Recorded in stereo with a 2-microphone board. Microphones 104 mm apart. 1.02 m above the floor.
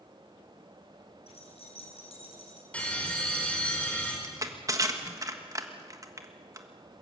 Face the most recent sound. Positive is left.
turn(degrees=-35)  # may be behind; listen again after turning